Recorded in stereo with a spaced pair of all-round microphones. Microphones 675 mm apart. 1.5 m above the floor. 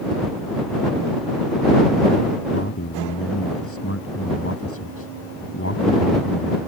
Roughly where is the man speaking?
Centre.